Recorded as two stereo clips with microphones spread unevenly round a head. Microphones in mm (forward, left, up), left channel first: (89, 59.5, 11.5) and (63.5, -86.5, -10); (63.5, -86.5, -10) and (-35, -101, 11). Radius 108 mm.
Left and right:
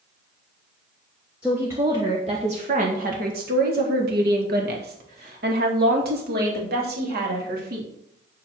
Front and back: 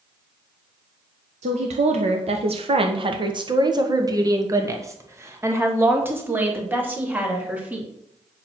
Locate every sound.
1.4 s a woman speaking: straight behind, 1.0 m; by 7.9 s 95° right, 3.5 m